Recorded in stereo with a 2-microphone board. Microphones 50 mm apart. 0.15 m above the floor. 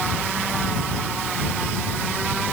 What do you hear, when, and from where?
Only background noise.